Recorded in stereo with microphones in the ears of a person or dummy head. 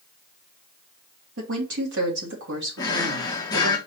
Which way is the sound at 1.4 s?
55° right (ahead or behind).